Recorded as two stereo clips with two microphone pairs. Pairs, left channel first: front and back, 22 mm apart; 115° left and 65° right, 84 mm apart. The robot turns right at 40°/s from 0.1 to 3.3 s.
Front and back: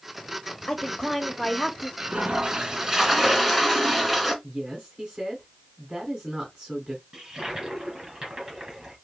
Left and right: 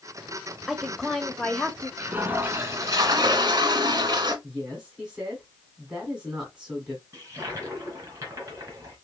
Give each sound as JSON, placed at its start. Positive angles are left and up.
{"t": 0.7, "sound": "a woman speaking", "azimuth_deg": 20, "distance_m": 0.9}
{"t": 2.0, "sound": "a toilet flushing", "azimuth_deg": -145, "distance_m": 1.2}
{"t": 4.4, "sound": "a woman speaking", "azimuth_deg": -140, "distance_m": 2.5}
{"t": 7.1, "sound": "a toilet flushing", "azimuth_deg": -120, "distance_m": 2.5}